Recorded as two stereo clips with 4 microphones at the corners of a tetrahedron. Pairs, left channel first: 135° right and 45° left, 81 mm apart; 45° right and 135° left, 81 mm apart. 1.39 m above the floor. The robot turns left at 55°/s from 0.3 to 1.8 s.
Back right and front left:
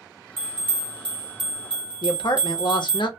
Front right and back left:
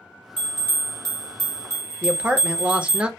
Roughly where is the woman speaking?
Behind right.